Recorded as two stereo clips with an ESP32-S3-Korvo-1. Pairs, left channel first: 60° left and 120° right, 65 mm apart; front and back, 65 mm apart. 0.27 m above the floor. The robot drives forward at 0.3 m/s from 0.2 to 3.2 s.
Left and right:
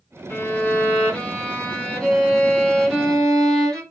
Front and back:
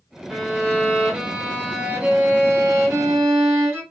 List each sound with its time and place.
0.3 s a violin: 95° left, 1.2 m; by 3.8 s 145° left, 1.5 m